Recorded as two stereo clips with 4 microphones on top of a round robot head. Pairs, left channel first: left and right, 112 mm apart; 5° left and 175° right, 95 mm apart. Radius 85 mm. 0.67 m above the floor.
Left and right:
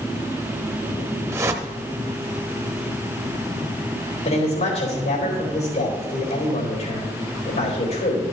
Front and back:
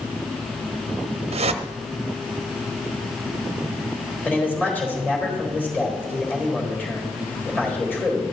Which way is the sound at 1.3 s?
160° right.